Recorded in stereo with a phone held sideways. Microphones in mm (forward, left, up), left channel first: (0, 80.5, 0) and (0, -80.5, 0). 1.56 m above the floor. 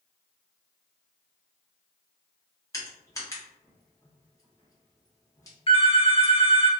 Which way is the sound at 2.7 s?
20° left (ahead or behind).